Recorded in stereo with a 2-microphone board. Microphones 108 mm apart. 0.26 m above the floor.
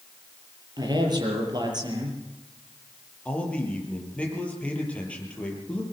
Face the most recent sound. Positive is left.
turn(degrees=10)  # may be behind; listen again after turning